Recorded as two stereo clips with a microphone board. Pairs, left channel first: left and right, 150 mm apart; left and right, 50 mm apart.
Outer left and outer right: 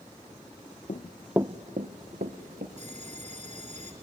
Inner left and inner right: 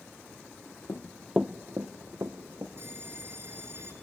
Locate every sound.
0.9 s running footsteps: 50° left (ahead or behind), 0.8 m; by 2.7 s 80° right, 2 m
2.8 s a bell: 50° right (ahead or behind), 1.8 m